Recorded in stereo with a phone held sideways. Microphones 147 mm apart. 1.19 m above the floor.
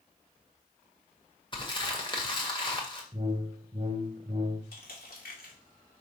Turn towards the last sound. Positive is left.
turn(degrees=85)